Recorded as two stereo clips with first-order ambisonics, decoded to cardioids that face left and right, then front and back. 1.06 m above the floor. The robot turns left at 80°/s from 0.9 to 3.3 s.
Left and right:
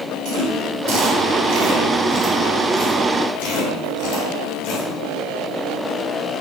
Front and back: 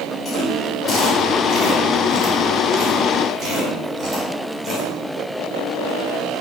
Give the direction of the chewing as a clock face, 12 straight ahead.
2 o'clock.